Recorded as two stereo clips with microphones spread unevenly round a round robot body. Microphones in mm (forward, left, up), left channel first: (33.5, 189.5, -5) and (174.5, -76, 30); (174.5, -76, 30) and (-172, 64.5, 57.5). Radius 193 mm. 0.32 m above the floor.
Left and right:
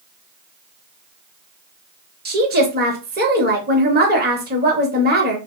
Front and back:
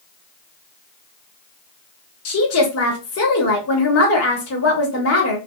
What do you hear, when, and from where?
2.2 s a woman speaking: 10° right, 1.1 m